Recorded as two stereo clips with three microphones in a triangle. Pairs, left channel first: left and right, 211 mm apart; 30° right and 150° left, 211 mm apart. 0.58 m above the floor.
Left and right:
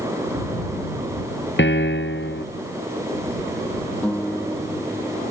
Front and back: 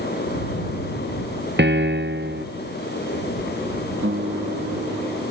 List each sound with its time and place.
1.6 s a piano: 120° left
4.0 s a guitar: 175° left